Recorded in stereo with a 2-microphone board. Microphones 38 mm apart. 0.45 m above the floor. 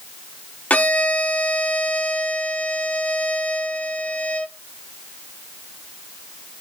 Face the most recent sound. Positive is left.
turn(degrees=40)  # may be behind; listen again after turning